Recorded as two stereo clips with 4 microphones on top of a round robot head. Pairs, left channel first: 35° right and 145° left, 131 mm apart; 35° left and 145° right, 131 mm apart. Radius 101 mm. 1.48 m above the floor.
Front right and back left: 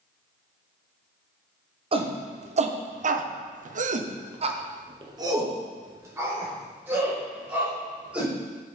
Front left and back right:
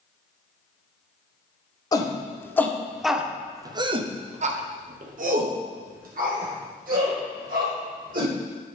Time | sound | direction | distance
1.9 | a shout | 95° left | 1.2 m